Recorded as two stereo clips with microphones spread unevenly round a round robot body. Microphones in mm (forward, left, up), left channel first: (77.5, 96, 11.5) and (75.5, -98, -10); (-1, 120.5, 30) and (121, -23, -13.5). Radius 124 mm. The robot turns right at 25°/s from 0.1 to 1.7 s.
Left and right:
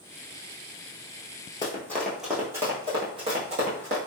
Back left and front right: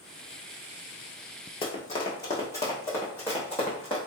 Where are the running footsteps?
140° left, 0.7 m; by 4.0 s 150° right, 1.4 m.